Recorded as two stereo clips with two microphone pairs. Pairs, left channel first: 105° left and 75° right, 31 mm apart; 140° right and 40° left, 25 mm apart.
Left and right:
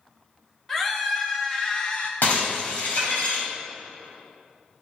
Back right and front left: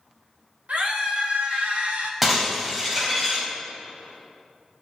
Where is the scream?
35° left, 2.5 m; by 2.1 s 55° left, 1.2 m.